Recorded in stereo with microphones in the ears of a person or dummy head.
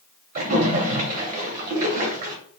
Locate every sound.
0.3 s a splash: 40° right (ahead or behind), 0.6 m